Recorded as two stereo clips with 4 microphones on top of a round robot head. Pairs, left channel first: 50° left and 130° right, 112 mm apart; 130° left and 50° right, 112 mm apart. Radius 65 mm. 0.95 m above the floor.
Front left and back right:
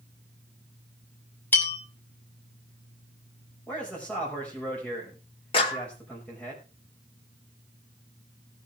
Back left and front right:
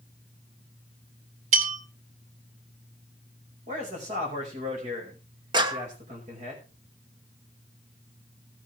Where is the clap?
5° left, 1.7 m.